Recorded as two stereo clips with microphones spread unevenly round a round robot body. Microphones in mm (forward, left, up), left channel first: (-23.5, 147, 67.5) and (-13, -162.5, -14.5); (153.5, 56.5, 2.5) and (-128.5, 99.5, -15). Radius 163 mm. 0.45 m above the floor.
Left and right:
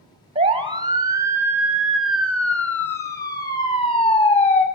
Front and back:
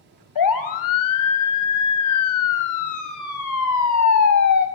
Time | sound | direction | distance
0.3 | a siren | 25° right | 3 m